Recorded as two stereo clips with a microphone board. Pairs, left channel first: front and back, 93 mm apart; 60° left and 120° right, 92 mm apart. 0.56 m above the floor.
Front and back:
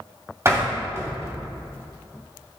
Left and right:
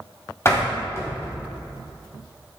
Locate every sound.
0.5 s a door slam: 120° left, 2.0 m